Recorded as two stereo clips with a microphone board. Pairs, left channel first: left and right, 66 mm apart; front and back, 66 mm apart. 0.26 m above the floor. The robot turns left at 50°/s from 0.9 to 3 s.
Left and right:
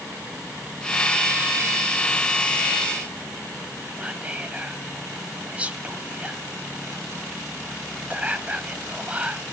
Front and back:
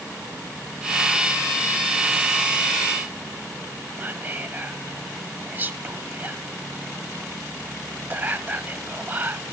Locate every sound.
4.0 s whispering: 140° right, 1.1 m